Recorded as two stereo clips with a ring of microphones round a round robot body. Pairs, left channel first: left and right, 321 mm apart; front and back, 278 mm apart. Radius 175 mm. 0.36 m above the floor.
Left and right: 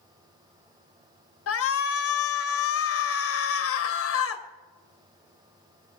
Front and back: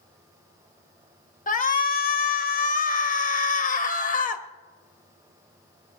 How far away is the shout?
About 1.9 m.